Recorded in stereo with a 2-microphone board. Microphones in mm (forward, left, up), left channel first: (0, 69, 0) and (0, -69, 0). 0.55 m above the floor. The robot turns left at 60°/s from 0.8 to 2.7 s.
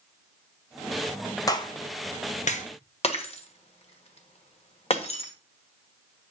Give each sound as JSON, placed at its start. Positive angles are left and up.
{"t": 1.5, "sound": "a clap", "side_deg": 25, "distance_m": 1.2}
{"t": 3.0, "sound": "breaking glass", "side_deg": 50, "distance_m": 1.4}